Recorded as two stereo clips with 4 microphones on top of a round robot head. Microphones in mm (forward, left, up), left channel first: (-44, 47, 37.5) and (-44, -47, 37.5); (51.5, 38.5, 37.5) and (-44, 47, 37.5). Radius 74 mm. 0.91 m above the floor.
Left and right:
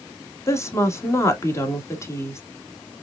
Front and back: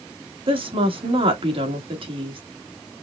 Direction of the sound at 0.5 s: 150° left.